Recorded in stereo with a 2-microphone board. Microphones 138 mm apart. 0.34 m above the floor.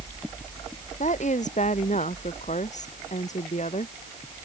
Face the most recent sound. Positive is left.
turn(degrees=55)  # may be behind; listen again after turning